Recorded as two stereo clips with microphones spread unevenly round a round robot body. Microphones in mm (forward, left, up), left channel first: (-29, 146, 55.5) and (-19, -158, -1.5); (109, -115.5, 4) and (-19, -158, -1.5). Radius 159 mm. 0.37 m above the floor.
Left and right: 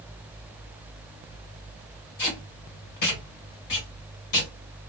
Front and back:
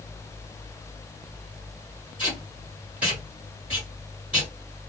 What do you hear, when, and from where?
2.2 s tape being pulled: 115° left, 2 m